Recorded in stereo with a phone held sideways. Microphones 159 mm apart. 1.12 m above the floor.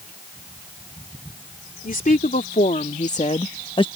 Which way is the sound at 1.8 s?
65° left (ahead or behind).